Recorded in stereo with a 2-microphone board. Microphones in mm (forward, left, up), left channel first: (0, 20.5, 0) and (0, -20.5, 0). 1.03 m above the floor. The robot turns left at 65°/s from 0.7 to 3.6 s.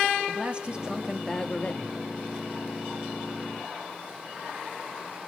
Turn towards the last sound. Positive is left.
turn(degrees=20)